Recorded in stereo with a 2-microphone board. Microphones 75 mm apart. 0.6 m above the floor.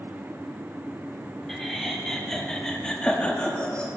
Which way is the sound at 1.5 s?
Centre (ahead or behind).